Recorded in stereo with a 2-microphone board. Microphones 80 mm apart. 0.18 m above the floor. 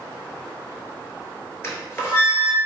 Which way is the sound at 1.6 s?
35° left (ahead or behind).